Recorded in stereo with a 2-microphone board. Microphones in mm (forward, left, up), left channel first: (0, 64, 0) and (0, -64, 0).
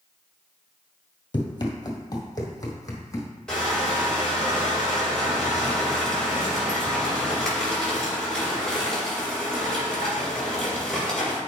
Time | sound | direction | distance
1.3 | running footsteps | 40° left (ahead or behind) | 1.2 m
3.5 | crushing | 5° left (ahead or behind) | 3.5 m